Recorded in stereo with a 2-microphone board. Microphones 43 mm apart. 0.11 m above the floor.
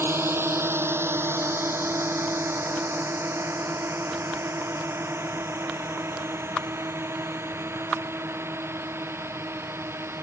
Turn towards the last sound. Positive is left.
turn(degrees=-65)  # may be behind; listen again after turning